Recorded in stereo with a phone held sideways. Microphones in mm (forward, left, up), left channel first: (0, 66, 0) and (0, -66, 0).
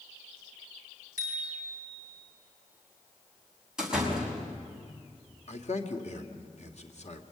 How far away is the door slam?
About 5.5 m.